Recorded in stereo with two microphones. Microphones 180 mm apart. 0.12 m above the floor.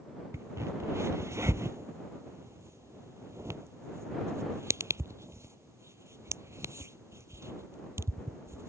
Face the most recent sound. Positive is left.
turn(degrees=-15)  # may be behind; listen again after turning